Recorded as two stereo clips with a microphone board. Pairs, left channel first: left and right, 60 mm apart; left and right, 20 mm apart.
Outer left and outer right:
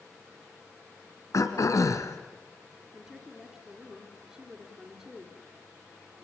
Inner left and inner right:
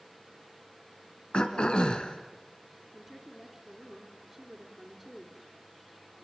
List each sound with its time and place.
1.3 s throat clearing: 60° left (ahead or behind), 2.5 m
2.9 s a woman speaking: 10° right (ahead or behind), 3.5 m